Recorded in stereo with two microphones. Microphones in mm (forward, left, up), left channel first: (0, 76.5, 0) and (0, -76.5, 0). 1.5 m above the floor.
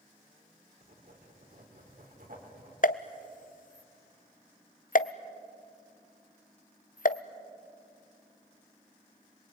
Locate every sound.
0.8 s writing: 65° right (ahead or behind), 4 m
2.8 s a pop: 60° left (ahead or behind), 0.6 m